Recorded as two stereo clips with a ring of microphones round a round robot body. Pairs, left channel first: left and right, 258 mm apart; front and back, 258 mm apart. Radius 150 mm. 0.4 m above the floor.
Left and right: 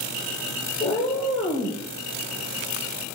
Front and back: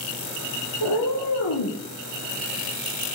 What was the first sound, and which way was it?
A cat meowing, 25° left.